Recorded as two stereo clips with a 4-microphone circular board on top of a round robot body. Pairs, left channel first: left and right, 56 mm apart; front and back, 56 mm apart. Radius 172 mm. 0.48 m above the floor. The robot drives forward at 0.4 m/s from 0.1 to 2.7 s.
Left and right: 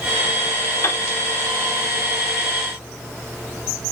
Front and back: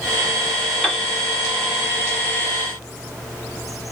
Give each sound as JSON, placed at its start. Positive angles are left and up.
{"t": 0.8, "sound": "a piano", "azimuth_deg": 95, "distance_m": 2.0}